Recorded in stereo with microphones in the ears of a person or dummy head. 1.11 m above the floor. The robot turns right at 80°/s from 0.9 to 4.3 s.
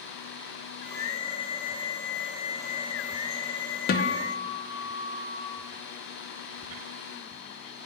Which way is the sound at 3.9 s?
50° left.